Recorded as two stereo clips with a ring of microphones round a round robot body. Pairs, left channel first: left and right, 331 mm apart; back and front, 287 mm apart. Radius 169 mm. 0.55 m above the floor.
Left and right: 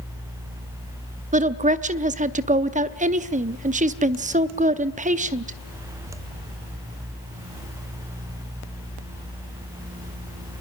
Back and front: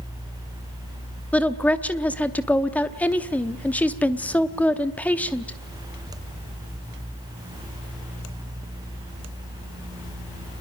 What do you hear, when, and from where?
1.3 s a woman speaking: 105° right, 0.8 m